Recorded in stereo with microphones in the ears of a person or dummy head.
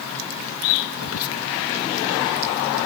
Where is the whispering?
90° left.